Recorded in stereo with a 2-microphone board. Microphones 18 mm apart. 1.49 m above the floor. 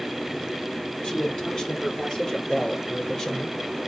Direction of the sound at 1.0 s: 50° left (ahead or behind).